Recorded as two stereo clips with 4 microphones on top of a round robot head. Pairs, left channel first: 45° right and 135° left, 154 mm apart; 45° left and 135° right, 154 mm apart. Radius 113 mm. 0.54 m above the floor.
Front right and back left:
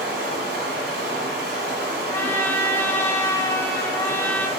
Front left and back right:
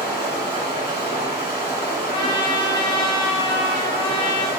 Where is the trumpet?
20° left, 0.8 m.